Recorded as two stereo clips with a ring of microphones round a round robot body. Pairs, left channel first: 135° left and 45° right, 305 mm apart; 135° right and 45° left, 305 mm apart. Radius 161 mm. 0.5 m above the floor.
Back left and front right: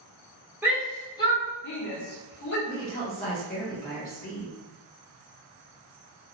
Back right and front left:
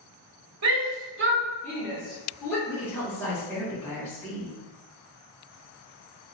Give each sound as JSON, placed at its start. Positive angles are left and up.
{"t": 0.6, "sound": "a shout", "azimuth_deg": 35, "distance_m": 1.2}
{"t": 2.7, "sound": "a woman speaking", "azimuth_deg": 150, "distance_m": 1.3}